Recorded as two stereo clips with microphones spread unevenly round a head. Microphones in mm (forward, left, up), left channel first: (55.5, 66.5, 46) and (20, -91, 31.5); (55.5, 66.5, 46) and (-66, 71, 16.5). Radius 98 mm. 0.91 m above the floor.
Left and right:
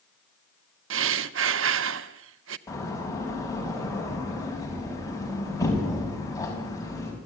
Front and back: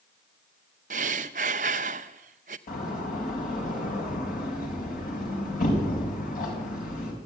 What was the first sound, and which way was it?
Breathing, 130° right.